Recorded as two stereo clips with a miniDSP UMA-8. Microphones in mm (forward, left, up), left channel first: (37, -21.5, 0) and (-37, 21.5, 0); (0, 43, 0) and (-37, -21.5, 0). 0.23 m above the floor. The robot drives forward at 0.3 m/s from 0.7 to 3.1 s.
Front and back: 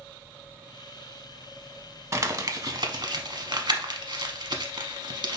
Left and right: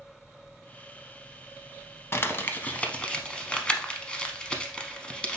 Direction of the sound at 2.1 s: 110° left.